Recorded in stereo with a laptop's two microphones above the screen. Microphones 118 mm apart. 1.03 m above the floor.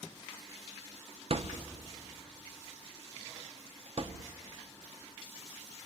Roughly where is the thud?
Right.